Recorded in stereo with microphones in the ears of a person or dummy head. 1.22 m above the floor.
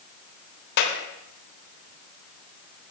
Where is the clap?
60° left (ahead or behind), 3 m.